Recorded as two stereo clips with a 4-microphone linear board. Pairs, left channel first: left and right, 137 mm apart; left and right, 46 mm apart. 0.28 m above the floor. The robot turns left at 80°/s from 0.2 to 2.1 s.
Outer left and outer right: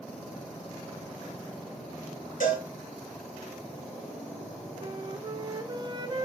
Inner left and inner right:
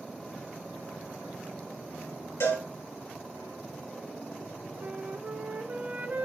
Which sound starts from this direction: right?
A flute, at 4.8 s.